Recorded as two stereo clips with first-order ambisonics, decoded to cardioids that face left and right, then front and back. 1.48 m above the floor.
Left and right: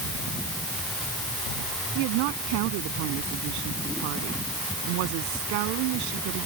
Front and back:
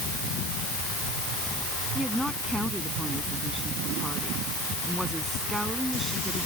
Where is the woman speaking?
95° right.